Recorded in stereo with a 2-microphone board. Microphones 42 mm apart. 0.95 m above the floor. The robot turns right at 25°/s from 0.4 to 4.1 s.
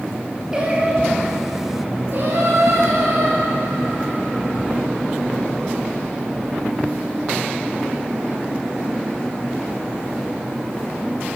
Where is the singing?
160° right, 3 m; by 4.6 s 70° right, 3 m.